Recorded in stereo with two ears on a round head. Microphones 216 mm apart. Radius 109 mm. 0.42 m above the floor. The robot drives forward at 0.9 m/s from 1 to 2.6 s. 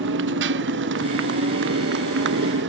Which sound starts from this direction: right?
A motorcycle, at 0.0 s.